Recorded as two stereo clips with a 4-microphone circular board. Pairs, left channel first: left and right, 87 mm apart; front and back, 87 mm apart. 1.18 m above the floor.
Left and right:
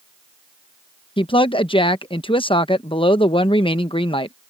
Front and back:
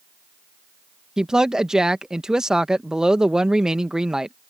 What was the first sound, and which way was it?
A woman speaking, 95° left.